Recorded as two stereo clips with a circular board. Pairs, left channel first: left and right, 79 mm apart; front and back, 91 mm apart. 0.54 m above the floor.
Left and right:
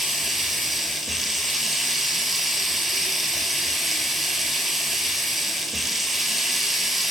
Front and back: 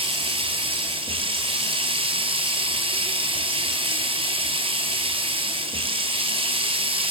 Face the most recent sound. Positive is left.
turn(degrees=180)